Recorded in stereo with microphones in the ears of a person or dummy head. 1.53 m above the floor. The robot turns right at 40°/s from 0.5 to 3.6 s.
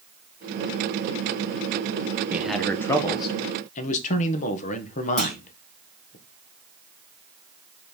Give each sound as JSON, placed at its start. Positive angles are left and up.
{"t": 2.3, "sound": "a man speaking", "azimuth_deg": -5, "distance_m": 1.2}
{"t": 5.2, "sound": "a clunk", "side_deg": 10, "distance_m": 2.5}